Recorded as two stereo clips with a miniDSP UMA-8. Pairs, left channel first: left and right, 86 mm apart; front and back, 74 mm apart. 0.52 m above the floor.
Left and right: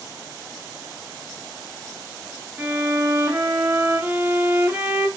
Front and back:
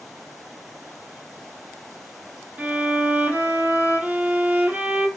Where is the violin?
135° right, 0.6 m.